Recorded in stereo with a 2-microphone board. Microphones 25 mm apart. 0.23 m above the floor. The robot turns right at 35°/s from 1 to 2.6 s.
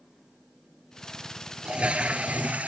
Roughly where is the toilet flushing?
Behind right.